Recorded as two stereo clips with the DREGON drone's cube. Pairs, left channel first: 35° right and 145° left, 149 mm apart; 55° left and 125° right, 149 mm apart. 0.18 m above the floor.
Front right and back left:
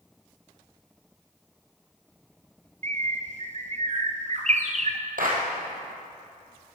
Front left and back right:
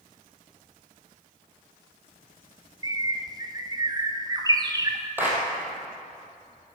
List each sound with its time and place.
2.8 s a bird: 175° left, 0.8 m
5.2 s a clap: 160° left, 2.5 m